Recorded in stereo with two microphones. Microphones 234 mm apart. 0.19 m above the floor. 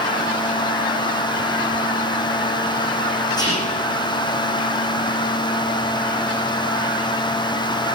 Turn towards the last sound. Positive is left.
turn(degrees=15)  # may be behind; listen again after turning